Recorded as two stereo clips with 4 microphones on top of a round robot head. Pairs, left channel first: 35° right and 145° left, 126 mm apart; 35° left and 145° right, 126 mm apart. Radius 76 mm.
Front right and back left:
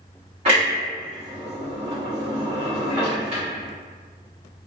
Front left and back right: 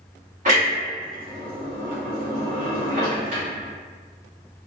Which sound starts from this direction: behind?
A clunk, at 0.5 s.